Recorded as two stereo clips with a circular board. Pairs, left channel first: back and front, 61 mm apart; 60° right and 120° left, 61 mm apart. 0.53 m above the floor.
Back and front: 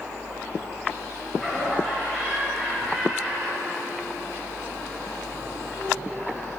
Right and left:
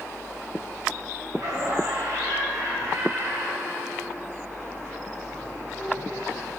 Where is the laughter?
105° left, 3 m.